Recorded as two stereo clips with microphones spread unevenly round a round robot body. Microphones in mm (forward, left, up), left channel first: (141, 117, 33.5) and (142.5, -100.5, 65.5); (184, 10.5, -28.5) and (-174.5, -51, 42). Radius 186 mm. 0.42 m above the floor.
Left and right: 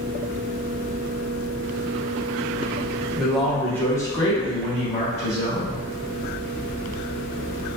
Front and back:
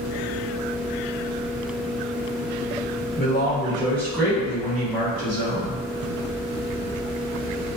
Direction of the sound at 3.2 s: 10° left.